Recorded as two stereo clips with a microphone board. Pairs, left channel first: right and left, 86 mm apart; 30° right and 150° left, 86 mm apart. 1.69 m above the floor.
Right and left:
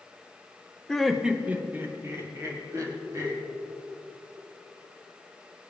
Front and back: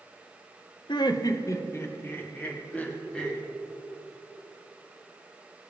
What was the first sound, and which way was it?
Laughter, 5° right.